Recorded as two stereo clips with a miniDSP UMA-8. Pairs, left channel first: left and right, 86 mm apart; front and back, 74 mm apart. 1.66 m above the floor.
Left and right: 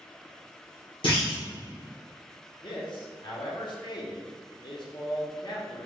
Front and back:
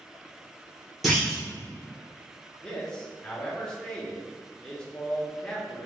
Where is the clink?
I don't hear a clink.